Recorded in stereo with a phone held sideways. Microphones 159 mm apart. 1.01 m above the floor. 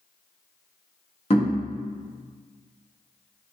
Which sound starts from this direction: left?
Knocking, at 1.3 s.